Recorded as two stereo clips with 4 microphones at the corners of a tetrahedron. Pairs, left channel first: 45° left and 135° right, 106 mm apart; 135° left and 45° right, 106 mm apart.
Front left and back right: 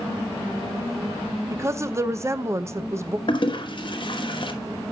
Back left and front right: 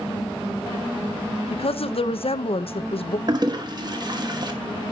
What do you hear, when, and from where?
1.5 s a woman speaking: 160° left, 0.6 m
3.3 s a toilet flushing: 5° left, 1.2 m